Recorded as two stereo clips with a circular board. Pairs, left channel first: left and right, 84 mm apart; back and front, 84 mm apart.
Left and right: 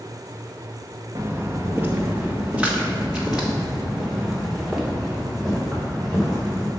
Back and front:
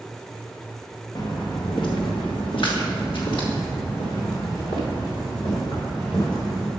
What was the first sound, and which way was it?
Footsteps, 145° right.